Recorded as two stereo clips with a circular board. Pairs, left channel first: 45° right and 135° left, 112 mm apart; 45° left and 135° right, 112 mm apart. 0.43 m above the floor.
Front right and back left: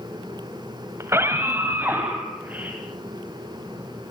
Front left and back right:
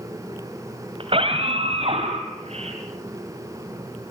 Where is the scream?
160° right, 2.5 m; by 2.8 s 150° right, 4.5 m.